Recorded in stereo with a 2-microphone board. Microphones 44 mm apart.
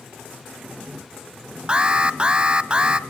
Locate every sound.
1.7 s an alarm: 20° right (ahead or behind), 0.7 m